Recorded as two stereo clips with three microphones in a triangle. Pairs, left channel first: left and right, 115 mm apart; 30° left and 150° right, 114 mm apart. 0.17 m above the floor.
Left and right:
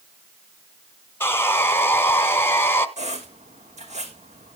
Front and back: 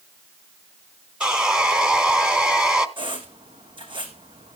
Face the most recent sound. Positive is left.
turn(degrees=-105)